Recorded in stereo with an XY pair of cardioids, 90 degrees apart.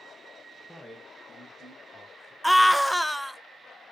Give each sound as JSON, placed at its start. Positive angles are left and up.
{"t": 0.7, "sound": "a man speaking", "azimuth_deg": 5, "distance_m": 1.3}
{"t": 2.4, "sound": "a scream", "azimuth_deg": -5, "distance_m": 0.5}